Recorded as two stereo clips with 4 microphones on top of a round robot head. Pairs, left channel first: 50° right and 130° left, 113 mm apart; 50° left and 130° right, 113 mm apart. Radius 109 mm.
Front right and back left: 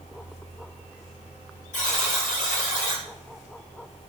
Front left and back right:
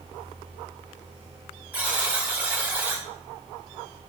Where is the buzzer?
50° right, 3.5 m.